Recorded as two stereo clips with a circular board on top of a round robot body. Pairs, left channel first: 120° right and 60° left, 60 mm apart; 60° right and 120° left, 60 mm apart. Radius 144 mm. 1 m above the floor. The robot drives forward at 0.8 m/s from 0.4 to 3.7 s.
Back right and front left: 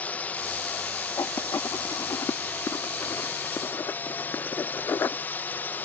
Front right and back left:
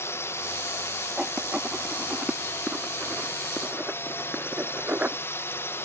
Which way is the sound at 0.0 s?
65° right.